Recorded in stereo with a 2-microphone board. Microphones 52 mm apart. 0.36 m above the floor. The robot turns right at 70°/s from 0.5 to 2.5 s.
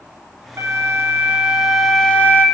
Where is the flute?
85° right, 1.2 m; by 2.5 s 50° left, 1.2 m.